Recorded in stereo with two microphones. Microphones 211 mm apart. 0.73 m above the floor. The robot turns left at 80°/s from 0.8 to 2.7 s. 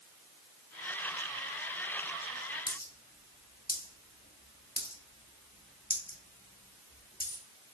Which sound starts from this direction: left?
A dropped coin, at 2.7 s.